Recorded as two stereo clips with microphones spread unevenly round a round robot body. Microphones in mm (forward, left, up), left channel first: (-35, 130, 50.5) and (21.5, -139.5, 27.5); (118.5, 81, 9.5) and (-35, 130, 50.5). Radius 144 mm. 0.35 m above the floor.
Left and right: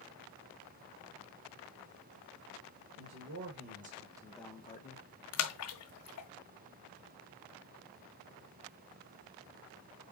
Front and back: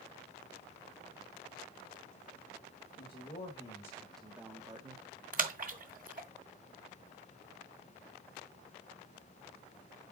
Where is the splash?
125° left, 1.7 m.